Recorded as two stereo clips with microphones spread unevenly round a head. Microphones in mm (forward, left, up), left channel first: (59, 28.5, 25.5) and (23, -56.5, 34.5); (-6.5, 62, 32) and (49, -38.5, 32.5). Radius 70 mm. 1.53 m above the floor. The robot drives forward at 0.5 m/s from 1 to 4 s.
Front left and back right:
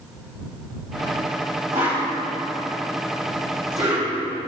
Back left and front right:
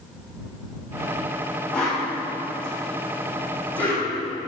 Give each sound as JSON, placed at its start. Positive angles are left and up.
{"t": 1.7, "sound": "a whoosh", "azimuth_deg": -160, "distance_m": 2.0}